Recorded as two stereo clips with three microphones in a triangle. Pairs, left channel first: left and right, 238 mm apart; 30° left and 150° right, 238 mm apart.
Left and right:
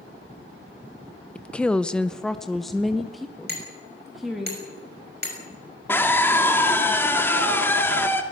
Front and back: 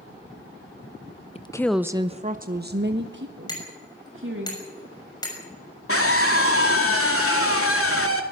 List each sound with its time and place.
1.4 s a woman speaking: 10° left, 0.6 m; by 4.5 s straight behind, 2 m
3.5 s hammering: 45° right, 6 m
5.9 s a scream: 10° left, 2.5 m